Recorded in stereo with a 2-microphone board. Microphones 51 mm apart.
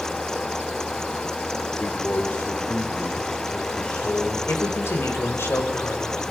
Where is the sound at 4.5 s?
50° left (ahead or behind), 3.5 m.